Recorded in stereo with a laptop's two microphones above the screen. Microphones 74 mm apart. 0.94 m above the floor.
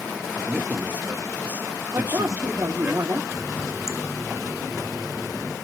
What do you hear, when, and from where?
0.4 s a man speaking: 25° right (ahead or behind), 1.4 m
1.9 s a woman speaking: 40° right (ahead or behind), 2.5 m
3.3 s a running tap: 50° left (ahead or behind), 2 m